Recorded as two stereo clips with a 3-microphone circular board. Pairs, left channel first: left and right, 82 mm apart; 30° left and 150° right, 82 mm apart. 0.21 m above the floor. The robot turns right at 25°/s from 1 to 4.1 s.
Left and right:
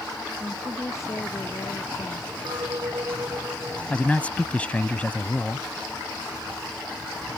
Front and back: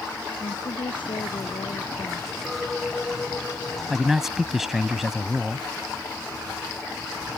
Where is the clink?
65° right; by 3.8 s 30° right.